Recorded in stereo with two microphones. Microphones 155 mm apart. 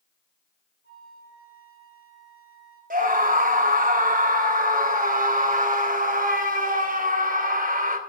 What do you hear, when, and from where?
0.8 s a flute: 85° left, 9 m
2.9 s a scream: 60° right (ahead or behind), 3 m